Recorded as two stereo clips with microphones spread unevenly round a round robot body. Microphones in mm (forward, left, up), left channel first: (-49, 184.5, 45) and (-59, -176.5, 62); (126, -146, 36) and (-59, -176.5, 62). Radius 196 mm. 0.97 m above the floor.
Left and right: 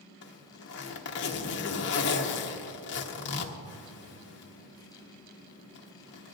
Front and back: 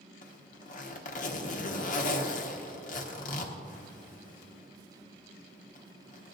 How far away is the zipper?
About 0.8 m.